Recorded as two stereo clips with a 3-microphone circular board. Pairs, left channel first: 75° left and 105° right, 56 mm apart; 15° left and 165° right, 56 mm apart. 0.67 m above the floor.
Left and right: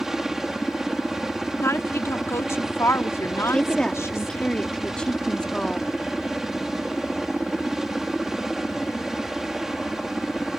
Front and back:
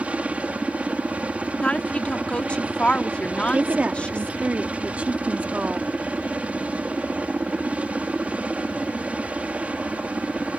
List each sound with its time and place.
0.0 s a helicopter: 175° right
1.6 s a woman speaking: 80° left
3.5 s a woman speaking: 140° left